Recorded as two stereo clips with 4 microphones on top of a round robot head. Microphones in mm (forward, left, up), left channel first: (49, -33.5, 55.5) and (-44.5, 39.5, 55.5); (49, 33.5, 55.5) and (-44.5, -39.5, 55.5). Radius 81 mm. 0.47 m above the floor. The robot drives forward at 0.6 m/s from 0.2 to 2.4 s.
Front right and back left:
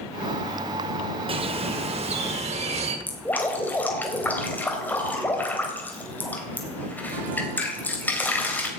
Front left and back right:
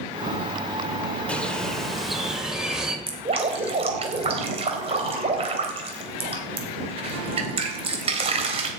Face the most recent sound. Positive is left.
turn(degrees=-115)